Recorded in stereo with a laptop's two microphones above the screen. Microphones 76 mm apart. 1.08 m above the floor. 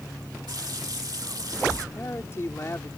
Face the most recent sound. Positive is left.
turn(degrees=35)  # may be behind; listen again after turning